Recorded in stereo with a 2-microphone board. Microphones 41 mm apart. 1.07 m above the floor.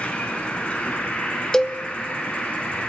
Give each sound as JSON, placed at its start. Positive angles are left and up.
{"t": 0.0, "sound": "an insect", "side_deg": 30, "distance_m": 3.5}
{"t": 1.5, "sound": "a cowbell", "side_deg": 10, "distance_m": 0.7}